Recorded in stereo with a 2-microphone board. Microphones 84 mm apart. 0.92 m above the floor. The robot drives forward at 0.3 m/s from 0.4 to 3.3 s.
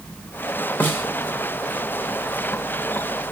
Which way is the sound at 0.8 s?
25° left (ahead or behind).